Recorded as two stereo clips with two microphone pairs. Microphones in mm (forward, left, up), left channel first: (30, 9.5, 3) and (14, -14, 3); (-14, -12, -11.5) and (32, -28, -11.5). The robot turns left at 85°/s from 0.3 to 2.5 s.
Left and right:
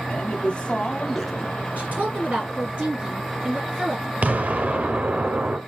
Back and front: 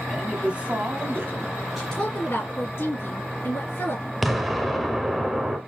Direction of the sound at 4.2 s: 110° right.